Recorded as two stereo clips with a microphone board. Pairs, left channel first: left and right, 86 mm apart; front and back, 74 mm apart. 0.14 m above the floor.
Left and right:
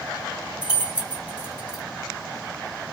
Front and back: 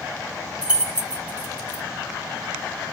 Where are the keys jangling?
145° right, 0.7 m.